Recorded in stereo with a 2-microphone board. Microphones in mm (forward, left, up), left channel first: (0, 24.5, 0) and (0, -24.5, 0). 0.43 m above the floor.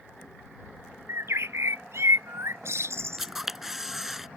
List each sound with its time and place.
1.1 s a bird: 65° right (ahead or behind)
3.2 s a camera shutter: 10° right (ahead or behind)